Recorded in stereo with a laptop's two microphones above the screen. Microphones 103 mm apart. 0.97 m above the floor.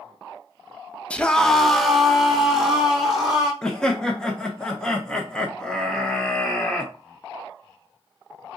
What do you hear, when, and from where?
1.1 s a scream: 10° left (ahead or behind), 0.7 m; by 3.5 s 5° right (ahead or behind), 3 m
3.6 s laughter: 5° left (ahead or behind), 0.7 m